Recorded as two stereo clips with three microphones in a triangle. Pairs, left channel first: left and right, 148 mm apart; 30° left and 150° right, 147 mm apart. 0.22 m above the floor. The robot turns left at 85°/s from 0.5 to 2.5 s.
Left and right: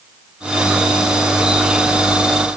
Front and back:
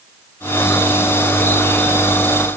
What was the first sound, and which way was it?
Only background noise.